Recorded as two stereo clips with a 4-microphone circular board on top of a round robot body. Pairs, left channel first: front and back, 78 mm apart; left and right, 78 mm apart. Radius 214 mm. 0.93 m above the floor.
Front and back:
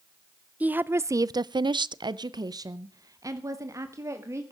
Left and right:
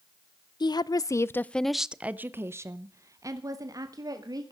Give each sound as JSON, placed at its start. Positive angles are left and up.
{"t": 0.6, "sound": "a woman speaking", "azimuth_deg": 110, "distance_m": 0.8}